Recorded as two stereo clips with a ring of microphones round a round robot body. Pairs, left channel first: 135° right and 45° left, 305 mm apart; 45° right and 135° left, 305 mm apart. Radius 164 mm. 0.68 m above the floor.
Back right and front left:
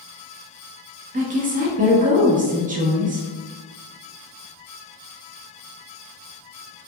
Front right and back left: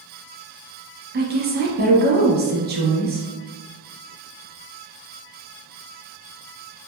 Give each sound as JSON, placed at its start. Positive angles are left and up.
{"t": 1.1, "sound": "a woman speaking", "azimuth_deg": 95, "distance_m": 1.0}